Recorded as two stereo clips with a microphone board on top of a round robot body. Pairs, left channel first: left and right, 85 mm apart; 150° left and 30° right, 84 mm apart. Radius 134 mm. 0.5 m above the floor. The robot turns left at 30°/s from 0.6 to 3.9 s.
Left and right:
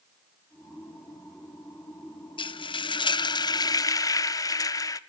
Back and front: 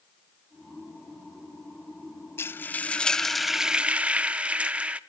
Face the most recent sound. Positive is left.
turn(degrees=45)